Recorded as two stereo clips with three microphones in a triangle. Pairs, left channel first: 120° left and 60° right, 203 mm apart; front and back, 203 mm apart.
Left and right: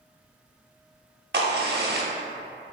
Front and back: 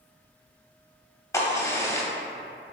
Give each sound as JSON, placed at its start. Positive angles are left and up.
{"t": 1.3, "sound": "a crack", "azimuth_deg": -70, "distance_m": 0.5}